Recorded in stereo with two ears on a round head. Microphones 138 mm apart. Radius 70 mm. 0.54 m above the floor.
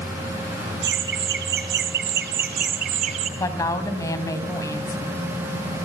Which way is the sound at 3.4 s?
20° left (ahead or behind).